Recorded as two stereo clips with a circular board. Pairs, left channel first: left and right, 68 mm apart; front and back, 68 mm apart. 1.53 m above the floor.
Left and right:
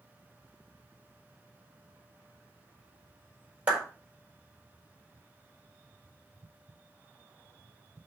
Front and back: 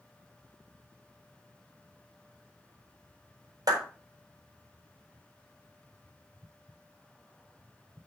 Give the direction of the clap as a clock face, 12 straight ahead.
5 o'clock.